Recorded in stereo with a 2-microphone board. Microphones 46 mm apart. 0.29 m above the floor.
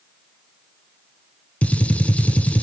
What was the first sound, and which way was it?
A gunshot, 35° left (ahead or behind).